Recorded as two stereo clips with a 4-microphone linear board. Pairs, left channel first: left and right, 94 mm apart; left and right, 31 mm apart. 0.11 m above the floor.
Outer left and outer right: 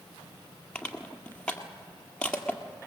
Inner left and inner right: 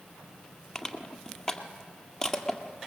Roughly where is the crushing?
Centre.